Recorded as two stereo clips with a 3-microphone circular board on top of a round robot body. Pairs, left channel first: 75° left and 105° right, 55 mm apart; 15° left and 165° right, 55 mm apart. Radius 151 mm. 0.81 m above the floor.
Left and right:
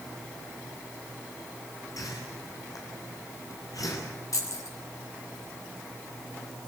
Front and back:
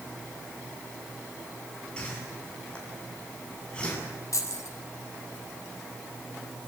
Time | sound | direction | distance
2.0 | a whoosh | 90° left | 7 m
4.3 | keys jangling | 50° left | 5.5 m